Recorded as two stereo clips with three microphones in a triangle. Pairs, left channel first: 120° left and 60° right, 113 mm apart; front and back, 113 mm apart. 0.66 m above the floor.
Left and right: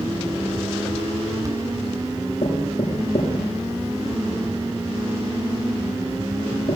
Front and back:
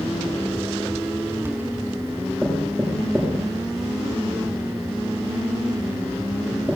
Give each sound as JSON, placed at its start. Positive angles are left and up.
{"t": 2.4, "sound": "knocking", "azimuth_deg": 95, "distance_m": 6.5}